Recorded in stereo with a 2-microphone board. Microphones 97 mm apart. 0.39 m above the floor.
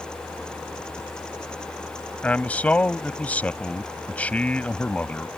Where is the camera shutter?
No camera shutter in this recording.